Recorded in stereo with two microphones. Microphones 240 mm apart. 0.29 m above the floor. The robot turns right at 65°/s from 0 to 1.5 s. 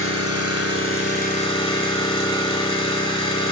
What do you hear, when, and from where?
0.0 s an engine running: 60° left, 0.9 m; by 3.5 s 155° left, 0.9 m